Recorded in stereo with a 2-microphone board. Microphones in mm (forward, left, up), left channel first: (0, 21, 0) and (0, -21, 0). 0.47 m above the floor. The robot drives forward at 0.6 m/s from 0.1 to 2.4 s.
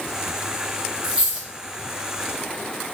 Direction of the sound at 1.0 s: 10° right (ahead or behind).